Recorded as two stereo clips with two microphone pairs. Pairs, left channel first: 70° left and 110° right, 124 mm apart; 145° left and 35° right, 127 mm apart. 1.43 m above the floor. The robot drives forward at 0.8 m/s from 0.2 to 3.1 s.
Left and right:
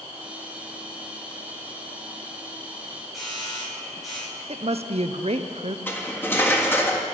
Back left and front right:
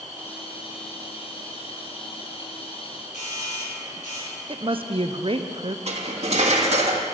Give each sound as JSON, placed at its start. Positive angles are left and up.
{"t": 3.1, "sound": "a doorbell", "azimuth_deg": 160, "distance_m": 6.0}
{"t": 4.5, "sound": "a woman speaking", "azimuth_deg": -80, "distance_m": 0.6}
{"t": 5.9, "sound": "cutlery clinking", "azimuth_deg": -5, "distance_m": 1.4}